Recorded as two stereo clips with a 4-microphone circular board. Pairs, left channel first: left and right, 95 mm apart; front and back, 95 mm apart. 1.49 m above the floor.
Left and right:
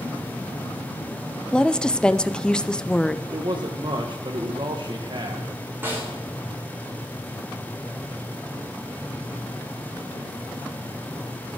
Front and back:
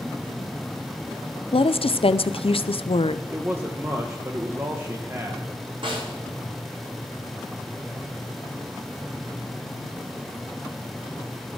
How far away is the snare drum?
About 4.5 m.